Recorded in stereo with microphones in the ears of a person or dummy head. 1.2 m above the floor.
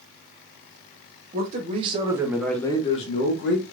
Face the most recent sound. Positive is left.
turn(degrees=60)  # may be behind; listen again after turning